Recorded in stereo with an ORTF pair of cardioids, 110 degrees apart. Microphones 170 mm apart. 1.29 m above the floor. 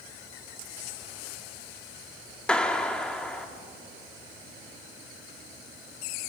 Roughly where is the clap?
Ahead.